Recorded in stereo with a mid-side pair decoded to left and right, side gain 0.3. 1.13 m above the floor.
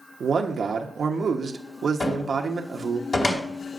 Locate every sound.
0.2 s a man speaking: 65° right, 1.1 m
2.0 s a cupboard door: 50° left, 2.5 m